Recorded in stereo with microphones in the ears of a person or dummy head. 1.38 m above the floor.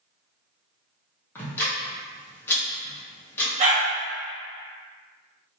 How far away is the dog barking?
About 1.5 m.